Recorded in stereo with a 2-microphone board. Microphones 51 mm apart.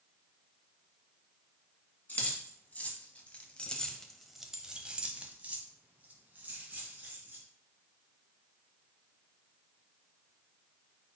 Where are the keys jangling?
35° left (ahead or behind), 1.4 m; by 7.4 s 35° right (ahead or behind), 2 m.